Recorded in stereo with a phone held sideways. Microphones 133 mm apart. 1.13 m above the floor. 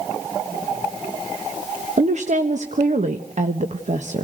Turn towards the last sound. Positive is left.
turn(degrees=-65)  # may be behind; listen again after turning